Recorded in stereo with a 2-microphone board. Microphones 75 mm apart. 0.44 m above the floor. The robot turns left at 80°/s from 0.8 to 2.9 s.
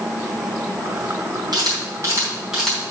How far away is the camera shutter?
About 4 m.